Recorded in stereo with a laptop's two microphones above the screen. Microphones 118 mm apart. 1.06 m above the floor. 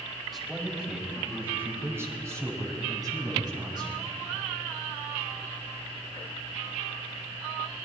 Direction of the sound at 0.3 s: Centre (ahead or behind).